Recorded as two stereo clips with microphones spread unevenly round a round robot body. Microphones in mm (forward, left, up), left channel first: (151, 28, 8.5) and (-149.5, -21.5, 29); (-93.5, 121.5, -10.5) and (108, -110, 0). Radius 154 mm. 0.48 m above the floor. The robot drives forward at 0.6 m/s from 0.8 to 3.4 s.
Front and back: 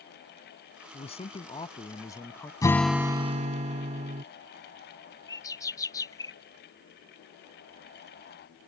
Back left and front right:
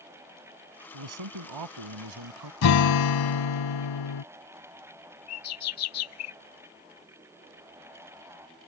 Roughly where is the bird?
Left.